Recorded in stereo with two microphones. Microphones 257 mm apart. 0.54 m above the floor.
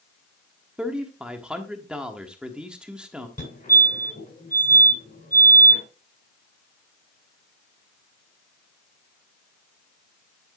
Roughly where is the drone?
I don't hear a drone.